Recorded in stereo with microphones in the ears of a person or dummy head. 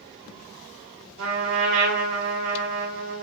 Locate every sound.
1.2 s a trumpet: 65° right (ahead or behind), 1.7 m